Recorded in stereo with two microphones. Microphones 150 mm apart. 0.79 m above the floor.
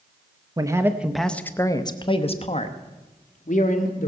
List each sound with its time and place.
0.6 s a man speaking: 25° right (ahead or behind), 0.8 m; by 4.1 s 65° left (ahead or behind), 1.8 m